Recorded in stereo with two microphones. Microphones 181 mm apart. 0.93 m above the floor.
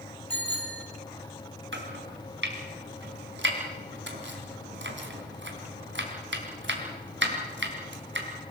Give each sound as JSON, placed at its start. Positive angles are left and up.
{"t": 0.3, "sound": "a bicycle bell", "side_deg": 80, "distance_m": 5.0}
{"t": 1.7, "sound": "chopping", "side_deg": -85, "distance_m": 3.0}